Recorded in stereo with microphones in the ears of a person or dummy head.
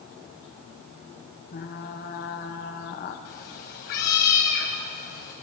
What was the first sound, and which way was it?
Frying, 40° left (ahead or behind).